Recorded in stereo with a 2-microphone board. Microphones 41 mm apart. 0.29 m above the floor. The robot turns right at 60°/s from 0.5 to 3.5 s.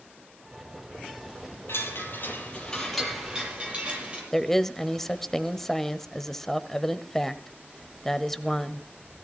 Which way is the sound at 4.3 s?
10° left (ahead or behind).